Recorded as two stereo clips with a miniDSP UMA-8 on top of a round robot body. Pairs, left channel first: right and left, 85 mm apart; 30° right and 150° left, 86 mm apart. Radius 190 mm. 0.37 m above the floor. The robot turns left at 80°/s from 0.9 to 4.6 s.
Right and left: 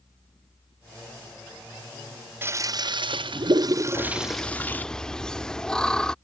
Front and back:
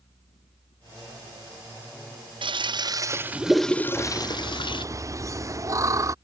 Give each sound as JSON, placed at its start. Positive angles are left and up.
{"t": 2.4, "sound": "a toilet flushing", "azimuth_deg": 155}
{"t": 4.0, "sound": "laughter", "azimuth_deg": -120}